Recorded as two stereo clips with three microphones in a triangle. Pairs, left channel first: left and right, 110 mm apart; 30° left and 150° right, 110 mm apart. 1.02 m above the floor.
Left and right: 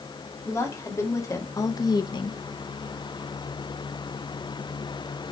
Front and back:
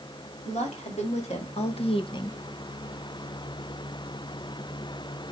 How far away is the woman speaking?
About 2.5 m.